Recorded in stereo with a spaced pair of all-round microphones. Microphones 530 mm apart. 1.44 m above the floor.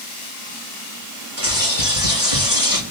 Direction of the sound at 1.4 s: 75° left (ahead or behind).